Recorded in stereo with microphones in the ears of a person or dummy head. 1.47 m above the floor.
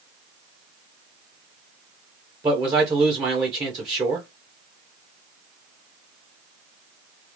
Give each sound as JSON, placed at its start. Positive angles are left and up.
{"t": 2.4, "sound": "a man speaking", "side_deg": -15, "distance_m": 1.3}